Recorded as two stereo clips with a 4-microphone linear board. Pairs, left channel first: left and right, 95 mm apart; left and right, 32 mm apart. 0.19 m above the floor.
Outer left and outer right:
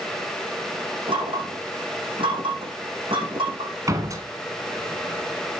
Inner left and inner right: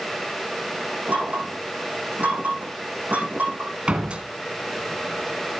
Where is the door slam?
35° right (ahead or behind), 1.5 m.